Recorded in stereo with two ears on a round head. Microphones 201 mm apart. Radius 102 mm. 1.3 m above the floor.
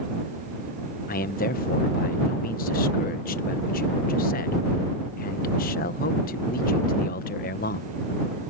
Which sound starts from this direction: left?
A man speaking, at 1.1 s.